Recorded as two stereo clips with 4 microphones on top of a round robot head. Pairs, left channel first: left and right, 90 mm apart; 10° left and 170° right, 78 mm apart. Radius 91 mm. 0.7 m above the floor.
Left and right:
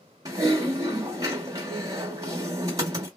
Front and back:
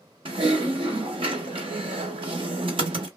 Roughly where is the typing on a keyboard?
Behind right.